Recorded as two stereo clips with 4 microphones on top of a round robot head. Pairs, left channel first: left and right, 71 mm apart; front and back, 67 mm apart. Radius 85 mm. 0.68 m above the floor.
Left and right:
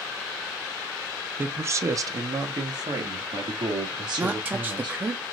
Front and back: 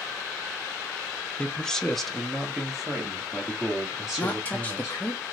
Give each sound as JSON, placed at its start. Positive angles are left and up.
{"t": 1.4, "sound": "a man speaking", "azimuth_deg": -60, "distance_m": 0.6}
{"t": 4.2, "sound": "a woman speaking", "azimuth_deg": -40, "distance_m": 0.6}